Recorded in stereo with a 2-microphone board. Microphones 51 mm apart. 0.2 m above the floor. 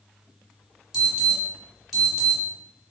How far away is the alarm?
About 1.3 m.